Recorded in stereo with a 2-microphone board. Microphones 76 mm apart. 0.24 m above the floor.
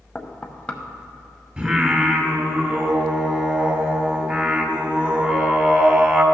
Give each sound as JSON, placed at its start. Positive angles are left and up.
{"t": 0.1, "sound": "knocking", "side_deg": 20, "distance_m": 0.7}
{"t": 1.6, "sound": "singing", "side_deg": -20, "distance_m": 1.3}